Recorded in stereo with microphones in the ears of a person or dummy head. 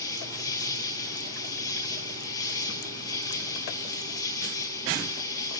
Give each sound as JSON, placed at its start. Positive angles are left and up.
{"t": 0.0, "sound": "an insect", "side_deg": 20, "distance_m": 2.0}